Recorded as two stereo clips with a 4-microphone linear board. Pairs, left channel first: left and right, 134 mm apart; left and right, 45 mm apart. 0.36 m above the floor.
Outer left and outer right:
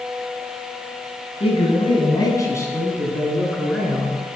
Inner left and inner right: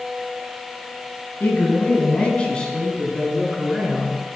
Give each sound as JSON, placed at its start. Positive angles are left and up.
{"t": 1.4, "sound": "a man speaking", "side_deg": 45, "distance_m": 4.0}